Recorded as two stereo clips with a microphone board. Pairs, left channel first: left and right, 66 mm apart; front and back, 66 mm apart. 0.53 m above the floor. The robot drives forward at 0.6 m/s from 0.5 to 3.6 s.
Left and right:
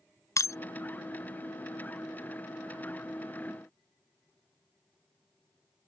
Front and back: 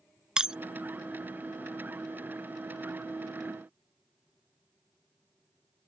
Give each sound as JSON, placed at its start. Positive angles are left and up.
{"t": 0.4, "sound": "breaking glass", "azimuth_deg": 105}